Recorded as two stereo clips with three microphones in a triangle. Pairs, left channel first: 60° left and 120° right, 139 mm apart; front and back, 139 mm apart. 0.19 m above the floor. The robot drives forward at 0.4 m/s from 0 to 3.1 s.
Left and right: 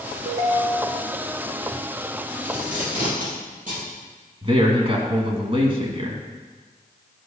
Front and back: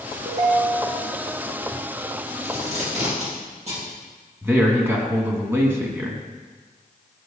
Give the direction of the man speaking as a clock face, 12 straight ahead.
4 o'clock.